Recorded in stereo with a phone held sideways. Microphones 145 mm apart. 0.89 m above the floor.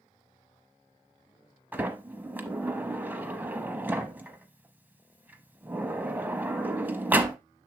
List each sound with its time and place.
1.7 s a sliding door: 10° right (ahead or behind), 0.9 m